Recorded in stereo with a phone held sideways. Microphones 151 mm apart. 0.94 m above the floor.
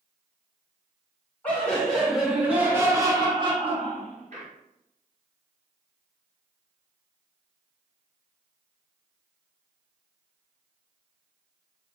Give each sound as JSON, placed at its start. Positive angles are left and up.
{"t": 1.4, "sound": "laughter", "side_deg": 10, "distance_m": 1.5}